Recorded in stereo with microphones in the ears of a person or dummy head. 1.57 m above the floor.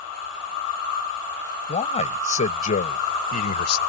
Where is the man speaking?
35° left (ahead or behind); by 3.8 s 50° left (ahead or behind).